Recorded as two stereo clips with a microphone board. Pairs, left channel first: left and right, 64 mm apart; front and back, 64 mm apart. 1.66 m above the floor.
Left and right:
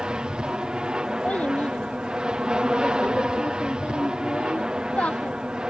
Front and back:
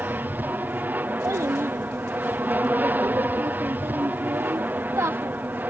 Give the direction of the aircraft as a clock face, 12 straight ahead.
5 o'clock.